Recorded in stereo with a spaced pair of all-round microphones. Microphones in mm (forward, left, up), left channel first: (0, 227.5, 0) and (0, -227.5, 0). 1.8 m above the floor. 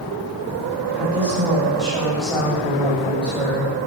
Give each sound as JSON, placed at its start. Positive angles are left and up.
{"t": 0.9, "sound": "a woman speaking", "side_deg": -5, "distance_m": 8.0}